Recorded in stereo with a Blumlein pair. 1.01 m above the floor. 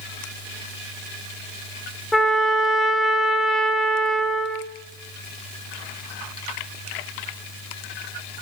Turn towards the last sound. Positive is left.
turn(degrees=5)